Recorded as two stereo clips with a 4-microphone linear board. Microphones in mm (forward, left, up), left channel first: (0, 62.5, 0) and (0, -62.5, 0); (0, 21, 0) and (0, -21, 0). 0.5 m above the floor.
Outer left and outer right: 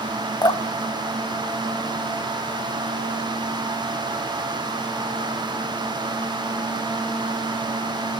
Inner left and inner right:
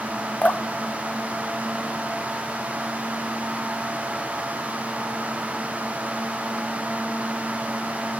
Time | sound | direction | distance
0.4 | dripping | 30° left (ahead or behind) | 0.8 m